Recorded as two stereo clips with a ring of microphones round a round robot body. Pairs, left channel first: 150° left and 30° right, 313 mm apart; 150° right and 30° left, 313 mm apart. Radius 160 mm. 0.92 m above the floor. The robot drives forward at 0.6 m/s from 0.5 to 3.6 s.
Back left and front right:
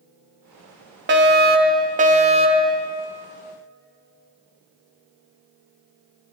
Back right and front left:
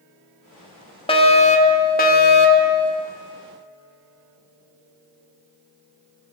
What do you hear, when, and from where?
1.1 s a fire alarm: 80° right, 3 m; by 2.7 s 105° right, 3 m